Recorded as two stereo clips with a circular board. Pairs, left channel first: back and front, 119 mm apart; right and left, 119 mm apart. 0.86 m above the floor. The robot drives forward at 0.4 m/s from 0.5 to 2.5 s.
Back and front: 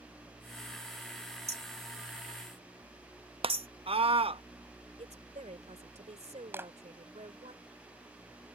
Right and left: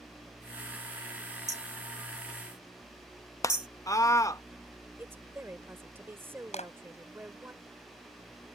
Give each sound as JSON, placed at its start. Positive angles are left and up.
{"t": 1.5, "sound": "hammering", "azimuth_deg": 30}
{"t": 3.4, "sound": "a scream", "azimuth_deg": -30}
{"t": 5.0, "sound": "a woman speaking", "azimuth_deg": 20}
{"t": 6.5, "sound": "a clap", "azimuth_deg": -70}